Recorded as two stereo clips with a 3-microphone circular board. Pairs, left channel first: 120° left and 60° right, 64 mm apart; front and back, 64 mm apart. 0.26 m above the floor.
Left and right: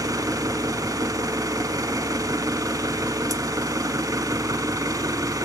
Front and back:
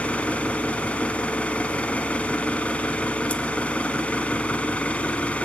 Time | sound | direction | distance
0.0 | an engine running | 70° right | 1.1 m